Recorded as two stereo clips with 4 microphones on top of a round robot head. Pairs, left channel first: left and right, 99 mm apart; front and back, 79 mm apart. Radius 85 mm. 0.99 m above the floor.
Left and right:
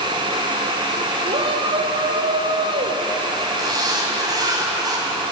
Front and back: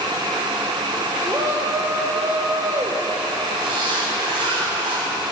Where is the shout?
115° right, 4 m.